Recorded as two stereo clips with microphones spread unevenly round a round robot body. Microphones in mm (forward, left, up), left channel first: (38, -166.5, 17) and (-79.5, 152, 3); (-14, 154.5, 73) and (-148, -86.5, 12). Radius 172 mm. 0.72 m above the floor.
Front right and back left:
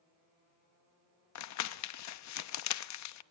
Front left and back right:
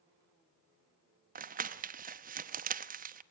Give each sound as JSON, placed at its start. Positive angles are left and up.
{"t": 1.4, "sound": "crumpling", "azimuth_deg": -90, "distance_m": 0.7}